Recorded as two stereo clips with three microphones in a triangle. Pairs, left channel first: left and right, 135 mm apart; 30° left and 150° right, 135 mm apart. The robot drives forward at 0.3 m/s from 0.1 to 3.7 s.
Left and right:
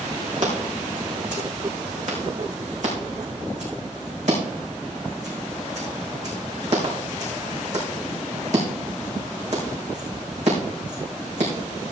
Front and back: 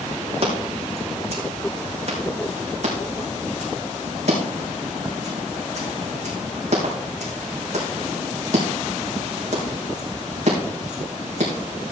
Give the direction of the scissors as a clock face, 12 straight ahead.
4 o'clock.